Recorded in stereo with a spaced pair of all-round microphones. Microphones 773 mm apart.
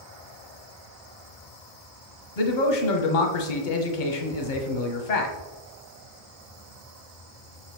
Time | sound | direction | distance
2.4 | a man speaking | 75° left (ahead or behind) | 0.9 m